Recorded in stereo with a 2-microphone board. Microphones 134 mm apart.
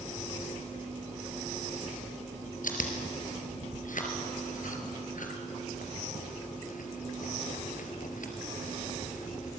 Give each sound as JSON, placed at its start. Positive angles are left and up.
{"t": 2.6, "sound": "chewing", "side_deg": 75, "distance_m": 3.0}